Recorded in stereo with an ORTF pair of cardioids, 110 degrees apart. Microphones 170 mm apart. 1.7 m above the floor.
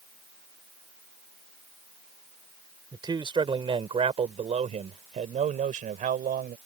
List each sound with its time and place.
2.9 s a man speaking: 25° right; by 6.6 s 55° right